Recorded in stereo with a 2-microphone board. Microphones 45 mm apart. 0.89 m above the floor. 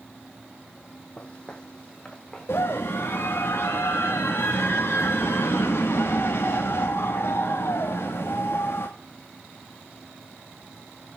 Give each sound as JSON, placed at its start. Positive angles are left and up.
{"t": 1.2, "sound": "footsteps", "side_deg": 25, "distance_m": 1.4}
{"t": 2.5, "sound": "a scream", "side_deg": 70, "distance_m": 1.2}